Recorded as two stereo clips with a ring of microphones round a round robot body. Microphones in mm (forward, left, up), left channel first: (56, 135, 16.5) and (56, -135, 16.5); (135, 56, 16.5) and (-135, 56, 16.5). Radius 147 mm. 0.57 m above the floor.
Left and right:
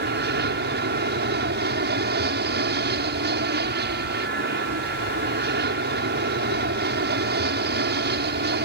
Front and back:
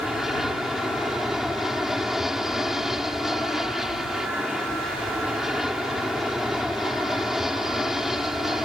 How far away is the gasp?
No gasp in this recording.